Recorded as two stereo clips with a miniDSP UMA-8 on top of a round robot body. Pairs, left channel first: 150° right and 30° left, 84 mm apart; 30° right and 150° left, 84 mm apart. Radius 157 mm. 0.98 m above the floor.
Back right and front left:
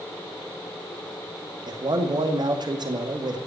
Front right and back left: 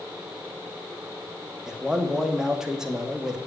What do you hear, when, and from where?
1.7 s a man speaking: 65° left, 2.5 m